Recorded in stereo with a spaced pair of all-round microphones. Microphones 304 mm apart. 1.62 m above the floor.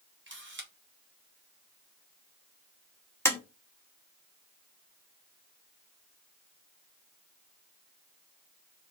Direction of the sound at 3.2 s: 10° left (ahead or behind).